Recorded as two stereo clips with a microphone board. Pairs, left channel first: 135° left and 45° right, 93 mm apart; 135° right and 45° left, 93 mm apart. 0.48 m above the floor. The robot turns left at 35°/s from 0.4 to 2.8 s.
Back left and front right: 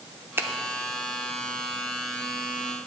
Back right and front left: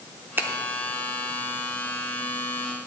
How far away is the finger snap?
About 0.7 m.